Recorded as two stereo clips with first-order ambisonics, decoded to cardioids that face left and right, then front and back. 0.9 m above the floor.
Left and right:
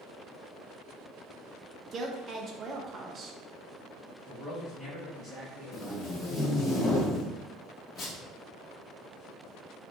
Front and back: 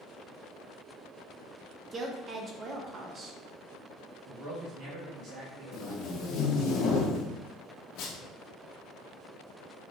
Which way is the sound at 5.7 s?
30° left.